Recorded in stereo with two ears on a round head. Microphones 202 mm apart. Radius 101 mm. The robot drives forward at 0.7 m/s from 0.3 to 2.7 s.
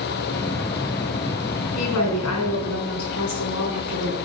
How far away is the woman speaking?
About 5 m.